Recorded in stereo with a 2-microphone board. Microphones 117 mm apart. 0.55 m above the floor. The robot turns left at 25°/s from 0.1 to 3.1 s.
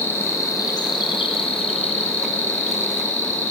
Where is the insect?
160° left, 4.5 m; by 3.5 s 85° left, 4.5 m.